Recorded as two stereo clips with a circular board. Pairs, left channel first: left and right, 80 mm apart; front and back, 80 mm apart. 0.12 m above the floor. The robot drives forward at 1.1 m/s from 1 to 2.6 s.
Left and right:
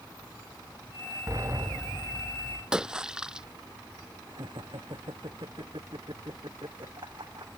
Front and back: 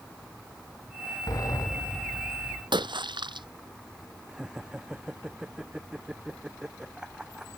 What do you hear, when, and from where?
1.3 s a sliding door: 40° right; by 2.6 s 55° right
2.7 s a splash: 170° right
4.3 s laughter: 100° right